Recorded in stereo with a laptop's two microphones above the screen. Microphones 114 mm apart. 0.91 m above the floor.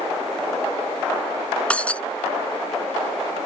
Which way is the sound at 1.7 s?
10° left (ahead or behind).